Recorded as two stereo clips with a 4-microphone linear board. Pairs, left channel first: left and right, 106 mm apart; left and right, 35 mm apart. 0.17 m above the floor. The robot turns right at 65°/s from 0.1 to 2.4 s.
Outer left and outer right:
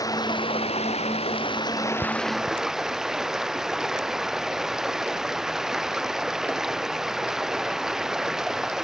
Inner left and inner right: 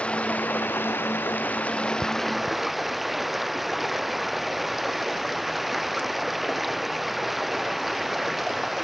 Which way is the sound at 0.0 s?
35° left.